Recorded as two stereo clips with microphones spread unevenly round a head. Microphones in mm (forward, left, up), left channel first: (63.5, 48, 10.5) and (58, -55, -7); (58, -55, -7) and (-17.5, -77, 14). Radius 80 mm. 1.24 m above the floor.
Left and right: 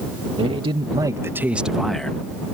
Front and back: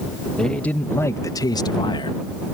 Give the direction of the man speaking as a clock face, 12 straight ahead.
2 o'clock.